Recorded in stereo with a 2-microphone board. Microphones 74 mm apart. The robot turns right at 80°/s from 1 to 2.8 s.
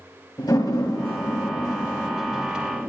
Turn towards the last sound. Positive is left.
turn(degrees=-35)  # may be behind; listen again after turning